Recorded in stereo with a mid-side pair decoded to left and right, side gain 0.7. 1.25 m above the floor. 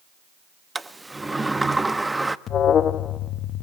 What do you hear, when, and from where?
0.8 s a sliding door: 10° right, 1.1 m
2.5 s an alarm: 40° left, 1.2 m